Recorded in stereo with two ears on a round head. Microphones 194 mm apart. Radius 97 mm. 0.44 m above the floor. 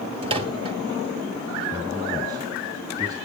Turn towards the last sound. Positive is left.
turn(degrees=-20)  # may be behind; listen again after turning